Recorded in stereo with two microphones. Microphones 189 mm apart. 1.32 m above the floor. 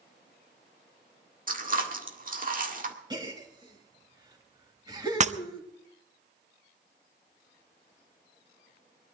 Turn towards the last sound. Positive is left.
turn(degrees=-40)  # may be behind; listen again after turning